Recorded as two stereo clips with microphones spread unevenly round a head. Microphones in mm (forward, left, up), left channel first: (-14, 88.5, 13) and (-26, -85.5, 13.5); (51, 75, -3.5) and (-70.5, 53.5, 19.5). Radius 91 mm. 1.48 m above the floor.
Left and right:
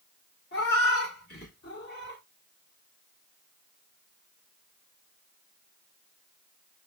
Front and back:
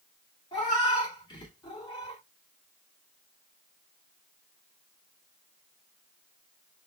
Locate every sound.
0.5 s a cat meowing: 65° left, 1.7 m